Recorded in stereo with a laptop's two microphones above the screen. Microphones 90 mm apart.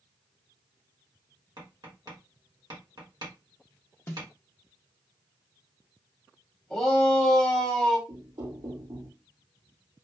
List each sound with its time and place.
1.6 s tapping: 55° right (ahead or behind), 1.6 m
4.1 s a snare drum: 30° left (ahead or behind), 0.7 m
6.7 s a shout: 5° left (ahead or behind), 1.1 m
8.1 s knocking: 60° right (ahead or behind), 1.7 m